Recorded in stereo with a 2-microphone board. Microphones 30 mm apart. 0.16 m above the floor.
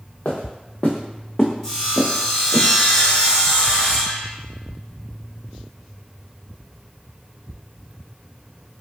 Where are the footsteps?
65° left (ahead or behind), 1.1 m; by 2.6 s 25° right (ahead or behind), 1.0 m.